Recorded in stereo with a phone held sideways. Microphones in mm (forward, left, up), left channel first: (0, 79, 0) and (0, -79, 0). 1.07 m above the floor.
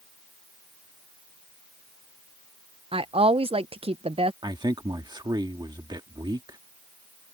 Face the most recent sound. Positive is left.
turn(degrees=-25)  # may be behind; listen again after turning